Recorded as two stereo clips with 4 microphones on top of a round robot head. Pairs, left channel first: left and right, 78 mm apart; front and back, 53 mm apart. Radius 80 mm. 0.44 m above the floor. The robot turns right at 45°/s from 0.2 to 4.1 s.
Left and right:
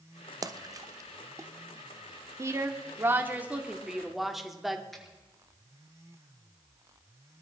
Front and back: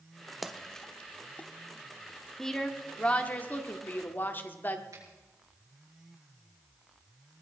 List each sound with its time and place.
0.4 s a splash: 95° right, 0.9 m; by 1.5 s 50° right, 0.9 m
2.4 s a woman speaking: 80° right, 1.3 m; by 4.8 s 5° right, 1.3 m
4.9 s a finger snap: 175° left, 5.5 m